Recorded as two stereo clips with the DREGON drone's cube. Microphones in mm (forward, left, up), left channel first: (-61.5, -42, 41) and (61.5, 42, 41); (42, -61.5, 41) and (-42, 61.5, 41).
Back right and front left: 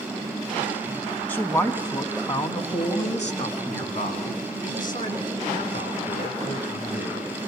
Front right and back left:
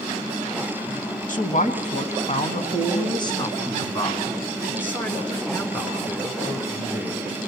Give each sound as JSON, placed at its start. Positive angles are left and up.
{"t": 1.3, "sound": "a man speaking", "azimuth_deg": -70, "distance_m": 3.0}